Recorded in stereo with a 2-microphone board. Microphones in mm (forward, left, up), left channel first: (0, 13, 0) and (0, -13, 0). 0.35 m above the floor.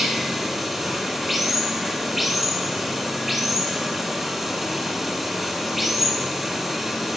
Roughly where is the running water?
Centre.